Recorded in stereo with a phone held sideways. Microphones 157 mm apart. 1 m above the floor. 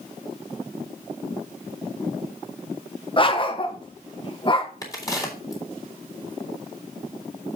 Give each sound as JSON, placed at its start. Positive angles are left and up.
{"t": 3.2, "sound": "a dog barking", "side_deg": 35, "distance_m": 1.1}
{"t": 4.8, "sound": "a crack", "side_deg": 20, "distance_m": 3.5}